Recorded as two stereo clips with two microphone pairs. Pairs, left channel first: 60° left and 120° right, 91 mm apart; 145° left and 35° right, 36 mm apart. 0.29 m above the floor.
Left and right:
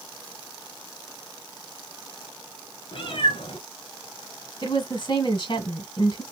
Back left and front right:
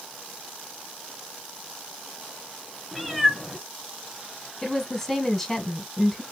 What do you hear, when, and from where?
2.9 s a cat meowing: 45° left, 2 m
4.6 s a woman speaking: 55° left, 1.7 m